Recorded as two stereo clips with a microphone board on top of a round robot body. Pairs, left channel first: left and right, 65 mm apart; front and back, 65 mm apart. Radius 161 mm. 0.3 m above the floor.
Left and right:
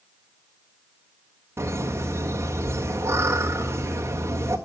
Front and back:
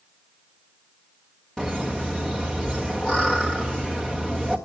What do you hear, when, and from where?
1.6 s laughter: 80° right, 1.9 m